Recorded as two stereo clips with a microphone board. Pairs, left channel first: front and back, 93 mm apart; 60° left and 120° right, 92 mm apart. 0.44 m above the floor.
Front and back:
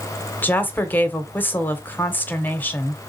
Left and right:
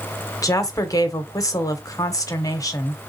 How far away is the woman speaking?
About 0.8 m.